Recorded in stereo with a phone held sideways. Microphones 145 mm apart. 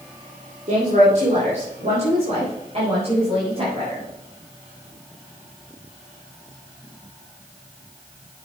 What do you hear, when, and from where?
0.7 s a woman speaking: 60° right (ahead or behind), 2.5 m; by 4.0 s 45° right (ahead or behind), 6 m